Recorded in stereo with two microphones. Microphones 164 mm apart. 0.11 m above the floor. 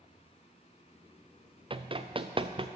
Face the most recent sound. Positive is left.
turn(degrees=-35)  # may be behind; listen again after turning